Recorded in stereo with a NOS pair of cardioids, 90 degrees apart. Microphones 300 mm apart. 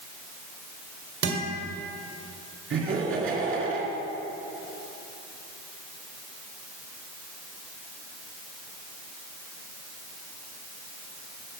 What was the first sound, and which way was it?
A guitar, 50° right.